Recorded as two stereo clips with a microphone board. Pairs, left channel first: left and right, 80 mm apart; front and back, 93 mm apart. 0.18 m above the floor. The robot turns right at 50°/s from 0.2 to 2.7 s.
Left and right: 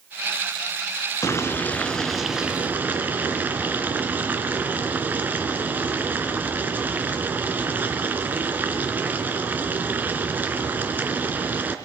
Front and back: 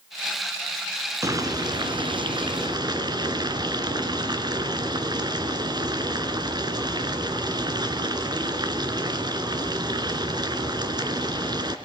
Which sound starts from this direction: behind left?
Boiling, at 1.2 s.